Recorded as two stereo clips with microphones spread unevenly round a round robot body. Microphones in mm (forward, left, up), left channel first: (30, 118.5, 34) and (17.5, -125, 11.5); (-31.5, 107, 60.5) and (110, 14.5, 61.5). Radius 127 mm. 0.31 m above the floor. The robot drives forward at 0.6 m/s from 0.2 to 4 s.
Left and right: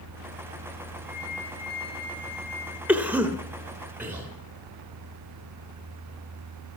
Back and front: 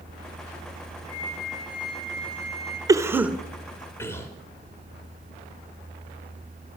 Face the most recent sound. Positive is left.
turn(degrees=-155)